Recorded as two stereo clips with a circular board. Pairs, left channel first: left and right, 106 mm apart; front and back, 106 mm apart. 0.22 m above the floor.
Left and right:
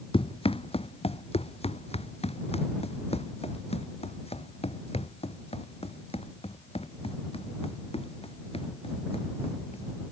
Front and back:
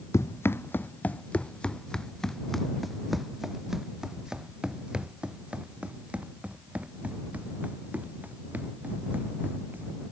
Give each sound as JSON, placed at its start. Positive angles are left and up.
{"t": 0.1, "sound": "running footsteps", "azimuth_deg": 65}